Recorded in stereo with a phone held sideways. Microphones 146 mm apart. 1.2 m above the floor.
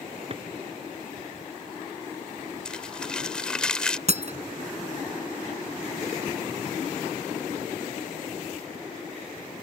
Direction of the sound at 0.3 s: 40° right (ahead or behind).